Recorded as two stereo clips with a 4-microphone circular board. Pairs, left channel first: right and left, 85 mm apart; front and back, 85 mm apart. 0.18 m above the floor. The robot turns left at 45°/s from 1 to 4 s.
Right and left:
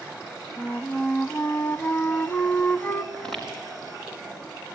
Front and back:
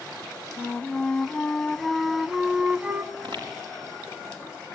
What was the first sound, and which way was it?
A flute, 45° right.